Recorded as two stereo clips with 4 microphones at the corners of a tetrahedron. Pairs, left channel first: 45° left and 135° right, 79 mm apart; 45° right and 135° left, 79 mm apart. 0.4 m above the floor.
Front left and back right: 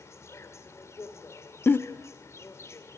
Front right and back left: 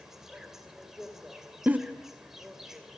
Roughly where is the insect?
Ahead left.